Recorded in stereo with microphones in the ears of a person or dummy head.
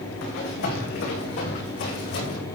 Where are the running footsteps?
70° left (ahead or behind), 6.5 m; by 2.4 s 55° left (ahead or behind), 5.5 m.